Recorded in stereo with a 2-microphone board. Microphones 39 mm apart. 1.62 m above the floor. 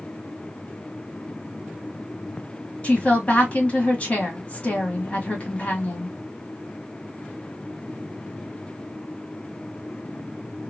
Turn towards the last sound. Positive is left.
turn(degrees=30)  # may be behind; listen again after turning